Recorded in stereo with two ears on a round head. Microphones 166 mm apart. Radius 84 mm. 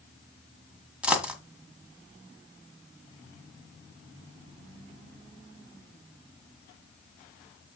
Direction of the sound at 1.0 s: 5° right (ahead or behind).